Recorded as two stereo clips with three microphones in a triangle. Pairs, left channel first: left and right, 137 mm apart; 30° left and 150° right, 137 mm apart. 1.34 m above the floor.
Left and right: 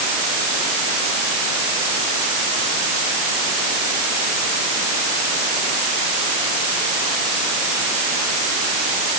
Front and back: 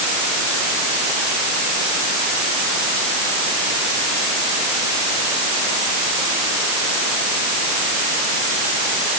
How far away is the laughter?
I don't hear laughter.